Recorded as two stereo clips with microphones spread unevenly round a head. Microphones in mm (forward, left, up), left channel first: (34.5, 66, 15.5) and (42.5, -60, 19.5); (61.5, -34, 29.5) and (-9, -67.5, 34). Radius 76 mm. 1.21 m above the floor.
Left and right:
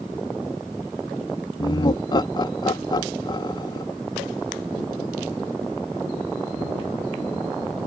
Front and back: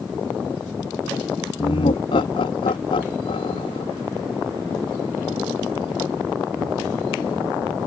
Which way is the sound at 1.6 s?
40° left.